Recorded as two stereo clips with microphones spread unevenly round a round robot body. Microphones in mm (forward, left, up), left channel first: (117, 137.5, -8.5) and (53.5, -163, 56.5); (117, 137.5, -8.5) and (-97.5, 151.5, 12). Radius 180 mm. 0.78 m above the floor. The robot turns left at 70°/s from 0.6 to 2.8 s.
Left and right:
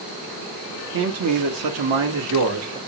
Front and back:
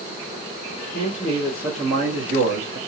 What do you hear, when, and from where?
0.9 s a man speaking: 50° right, 1.1 m; by 2.8 s straight behind, 1.1 m